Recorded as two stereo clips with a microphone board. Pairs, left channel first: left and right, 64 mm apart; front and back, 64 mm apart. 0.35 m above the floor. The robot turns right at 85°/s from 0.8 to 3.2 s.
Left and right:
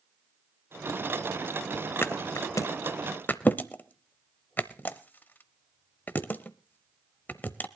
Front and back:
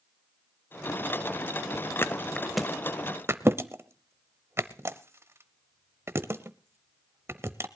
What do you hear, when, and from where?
2.0 s a thud: 40° left, 0.7 m; by 7.7 s 145° left, 0.7 m